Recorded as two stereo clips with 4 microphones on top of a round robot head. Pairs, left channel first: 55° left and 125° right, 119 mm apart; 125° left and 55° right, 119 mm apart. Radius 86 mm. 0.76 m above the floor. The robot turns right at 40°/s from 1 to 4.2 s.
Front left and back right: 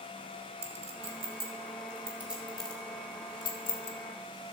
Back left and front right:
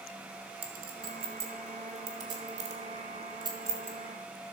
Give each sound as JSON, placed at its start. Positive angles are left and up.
{"t": 0.6, "sound": "a clink", "azimuth_deg": -100, "distance_m": 1.5}